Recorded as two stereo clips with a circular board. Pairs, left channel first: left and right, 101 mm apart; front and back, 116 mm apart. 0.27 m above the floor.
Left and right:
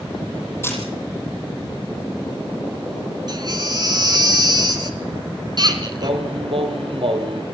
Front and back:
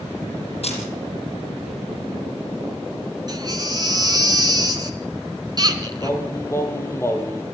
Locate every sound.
0.6 s a camera shutter: 25° left, 7 m
3.3 s a baby crying: 130° right, 2.5 m
6.0 s singing: 65° right, 3 m